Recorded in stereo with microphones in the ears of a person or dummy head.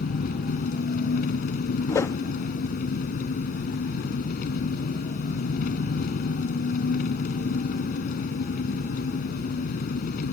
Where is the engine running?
50° left (ahead or behind).